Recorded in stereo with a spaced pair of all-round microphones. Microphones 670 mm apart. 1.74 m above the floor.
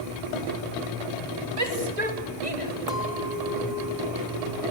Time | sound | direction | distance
1.6 | a shout | 75° right (ahead or behind) | 3.5 m
2.9 | a clink | 55° left (ahead or behind) | 2 m